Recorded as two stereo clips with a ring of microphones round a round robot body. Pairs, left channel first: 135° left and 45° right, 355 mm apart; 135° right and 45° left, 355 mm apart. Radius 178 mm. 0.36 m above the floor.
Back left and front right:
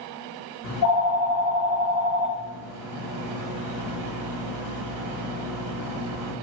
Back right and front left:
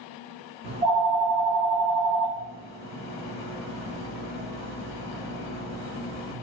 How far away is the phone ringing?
About 0.7 m.